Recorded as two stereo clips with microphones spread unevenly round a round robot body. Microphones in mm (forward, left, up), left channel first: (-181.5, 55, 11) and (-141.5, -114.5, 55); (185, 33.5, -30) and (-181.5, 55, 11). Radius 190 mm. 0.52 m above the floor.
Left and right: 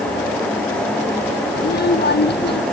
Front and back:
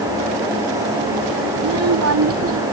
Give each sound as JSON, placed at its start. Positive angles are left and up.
{"t": 1.6, "sound": "a child speaking", "azimuth_deg": 130}